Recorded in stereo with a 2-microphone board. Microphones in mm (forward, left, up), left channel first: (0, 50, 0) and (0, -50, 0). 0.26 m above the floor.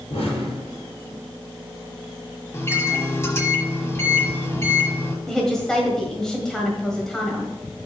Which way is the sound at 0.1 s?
75° left (ahead or behind).